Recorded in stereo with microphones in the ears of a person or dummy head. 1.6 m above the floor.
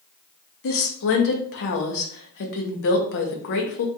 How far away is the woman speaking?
About 0.6 m.